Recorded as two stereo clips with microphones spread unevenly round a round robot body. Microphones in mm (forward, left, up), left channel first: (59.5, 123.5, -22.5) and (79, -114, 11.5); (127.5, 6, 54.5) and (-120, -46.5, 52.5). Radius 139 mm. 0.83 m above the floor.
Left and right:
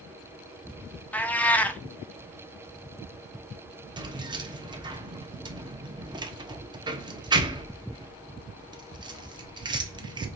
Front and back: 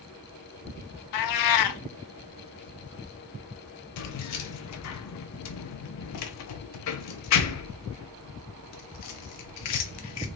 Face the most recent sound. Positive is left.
turn(degrees=-10)